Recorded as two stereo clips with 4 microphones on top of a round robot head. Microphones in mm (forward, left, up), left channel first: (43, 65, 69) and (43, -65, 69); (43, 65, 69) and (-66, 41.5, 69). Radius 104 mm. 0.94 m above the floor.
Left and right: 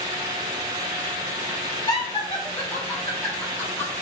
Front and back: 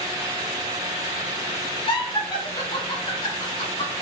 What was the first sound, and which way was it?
Laughter, 35° left.